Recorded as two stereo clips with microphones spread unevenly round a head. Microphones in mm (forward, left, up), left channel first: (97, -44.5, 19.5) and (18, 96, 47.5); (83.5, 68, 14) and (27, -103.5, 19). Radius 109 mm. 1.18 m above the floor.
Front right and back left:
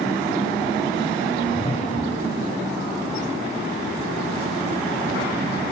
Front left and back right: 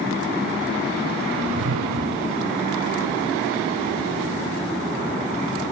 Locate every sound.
1.3 s a whoosh: 120° right